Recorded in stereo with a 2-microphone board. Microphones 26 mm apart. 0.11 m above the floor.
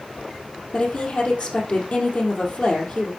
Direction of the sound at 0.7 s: 50° left (ahead or behind).